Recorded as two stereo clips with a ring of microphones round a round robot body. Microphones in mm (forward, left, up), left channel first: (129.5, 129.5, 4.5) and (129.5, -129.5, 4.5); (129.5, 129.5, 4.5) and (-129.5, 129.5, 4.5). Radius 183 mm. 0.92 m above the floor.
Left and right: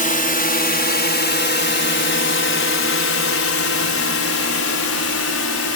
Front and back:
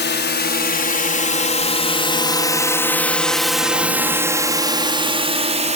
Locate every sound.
0.0 s a drone: 40° left; by 5.8 s 120° left